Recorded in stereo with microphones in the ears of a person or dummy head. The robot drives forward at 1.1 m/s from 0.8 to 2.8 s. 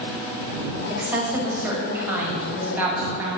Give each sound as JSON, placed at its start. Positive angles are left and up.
{"t": 0.9, "sound": "a woman speaking", "side_deg": -10, "distance_m": 4.5}